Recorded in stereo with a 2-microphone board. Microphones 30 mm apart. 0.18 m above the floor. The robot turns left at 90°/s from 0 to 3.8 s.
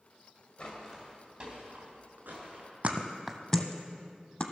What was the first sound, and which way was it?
Footsteps, 25° left (ahead or behind).